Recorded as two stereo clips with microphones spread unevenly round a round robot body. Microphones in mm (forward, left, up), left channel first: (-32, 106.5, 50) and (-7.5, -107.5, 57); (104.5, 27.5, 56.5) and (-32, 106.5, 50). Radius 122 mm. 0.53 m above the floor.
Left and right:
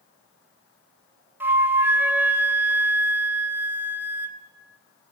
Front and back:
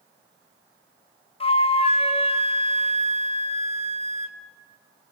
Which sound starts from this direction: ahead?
A flute, at 1.4 s.